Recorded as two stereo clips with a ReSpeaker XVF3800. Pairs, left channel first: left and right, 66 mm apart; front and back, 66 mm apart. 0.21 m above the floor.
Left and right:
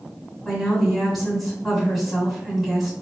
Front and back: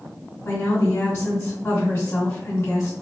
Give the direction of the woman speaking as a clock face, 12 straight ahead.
12 o'clock.